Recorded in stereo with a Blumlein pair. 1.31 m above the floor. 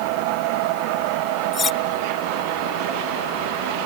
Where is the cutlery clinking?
20° left.